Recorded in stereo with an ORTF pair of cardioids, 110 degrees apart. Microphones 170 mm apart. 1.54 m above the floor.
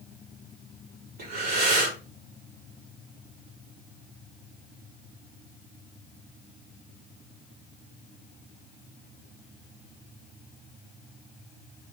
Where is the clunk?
No clunk in this recording.